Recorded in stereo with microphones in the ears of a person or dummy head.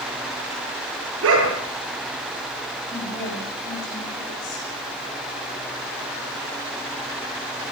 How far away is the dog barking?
About 7 m.